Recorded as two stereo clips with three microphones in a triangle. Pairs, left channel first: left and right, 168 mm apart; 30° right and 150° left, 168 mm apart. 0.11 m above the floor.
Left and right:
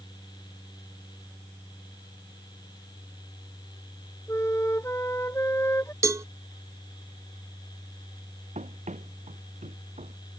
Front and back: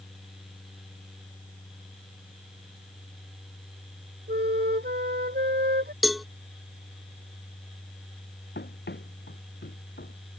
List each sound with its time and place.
4.3 s a flute: 165° left
6.0 s a cowbell: 120° right
8.6 s running footsteps: 40° right; by 10.3 s 45° right